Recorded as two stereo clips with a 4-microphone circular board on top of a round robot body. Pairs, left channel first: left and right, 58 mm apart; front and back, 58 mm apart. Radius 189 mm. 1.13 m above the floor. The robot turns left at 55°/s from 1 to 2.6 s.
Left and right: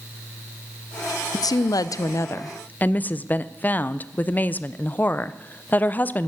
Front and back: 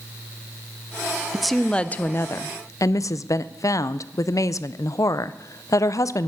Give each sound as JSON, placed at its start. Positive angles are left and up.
{"t": 1.3, "sound": "a woman speaking", "azimuth_deg": 95, "distance_m": 0.6}